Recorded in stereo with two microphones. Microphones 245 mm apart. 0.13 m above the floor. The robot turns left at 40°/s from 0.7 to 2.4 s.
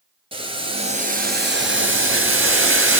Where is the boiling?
25° right, 1.0 m; by 3.0 s 95° right, 1.0 m.